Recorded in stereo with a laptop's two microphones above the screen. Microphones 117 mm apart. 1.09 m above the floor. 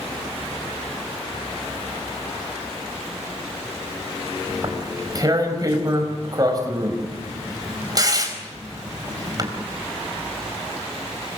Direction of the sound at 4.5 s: 35° right (ahead or behind).